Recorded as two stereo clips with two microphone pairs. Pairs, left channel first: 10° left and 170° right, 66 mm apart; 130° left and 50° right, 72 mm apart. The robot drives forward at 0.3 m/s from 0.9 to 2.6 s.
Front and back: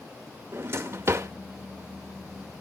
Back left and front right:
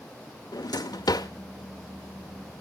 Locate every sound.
0.5 s a drawer: 140° left, 0.8 m; by 1.3 s 145° left, 0.8 m